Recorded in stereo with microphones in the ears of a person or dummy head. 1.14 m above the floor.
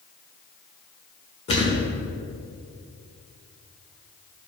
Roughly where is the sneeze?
I don't hear a sneeze.